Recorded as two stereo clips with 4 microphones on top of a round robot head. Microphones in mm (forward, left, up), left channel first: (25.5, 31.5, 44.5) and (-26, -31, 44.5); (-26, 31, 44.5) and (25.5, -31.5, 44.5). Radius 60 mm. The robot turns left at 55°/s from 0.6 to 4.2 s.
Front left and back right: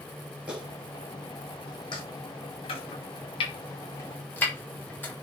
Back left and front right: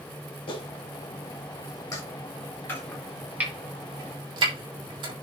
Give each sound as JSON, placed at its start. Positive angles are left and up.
{"t": 0.5, "sound": "a clap", "azimuth_deg": 155, "distance_m": 7.0}
{"t": 2.7, "sound": "chopping", "azimuth_deg": 65, "distance_m": 4.0}